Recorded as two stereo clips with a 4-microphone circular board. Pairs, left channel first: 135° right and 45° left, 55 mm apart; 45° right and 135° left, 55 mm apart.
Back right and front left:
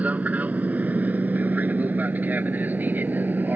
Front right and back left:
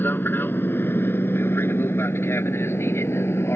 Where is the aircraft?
10° right.